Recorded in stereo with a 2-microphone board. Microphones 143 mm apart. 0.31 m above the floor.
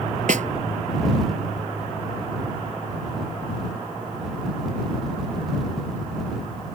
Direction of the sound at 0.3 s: 70° right (ahead or behind).